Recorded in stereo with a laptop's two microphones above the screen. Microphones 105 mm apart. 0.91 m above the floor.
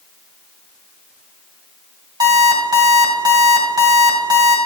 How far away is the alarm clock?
About 2 m.